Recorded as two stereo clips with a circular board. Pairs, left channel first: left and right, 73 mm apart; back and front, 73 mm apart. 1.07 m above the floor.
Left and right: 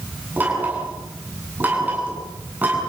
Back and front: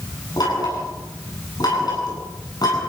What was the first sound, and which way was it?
Knocking, 155° right.